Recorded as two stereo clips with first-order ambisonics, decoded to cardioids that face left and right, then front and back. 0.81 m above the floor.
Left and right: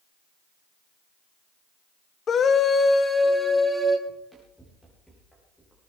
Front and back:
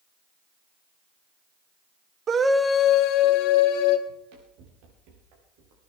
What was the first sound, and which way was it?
A scream, 140° left.